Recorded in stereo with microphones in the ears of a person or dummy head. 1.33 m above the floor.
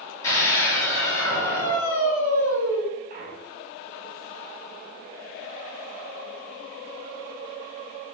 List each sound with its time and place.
0.2 s a scream: 15° left (ahead or behind), 3.5 m
3.1 s a clunk: 50° right (ahead or behind), 2.0 m